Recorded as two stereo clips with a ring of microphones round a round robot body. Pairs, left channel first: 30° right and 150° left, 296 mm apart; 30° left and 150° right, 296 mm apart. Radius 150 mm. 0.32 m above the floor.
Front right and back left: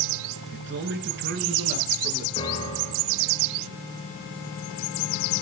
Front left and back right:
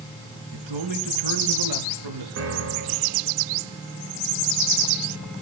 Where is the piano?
105° right, 3.5 m.